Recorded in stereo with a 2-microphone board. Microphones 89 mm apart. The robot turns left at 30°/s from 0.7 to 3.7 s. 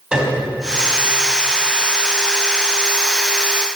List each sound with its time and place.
0.1 s a piano: 10° right (ahead or behind), 3.5 m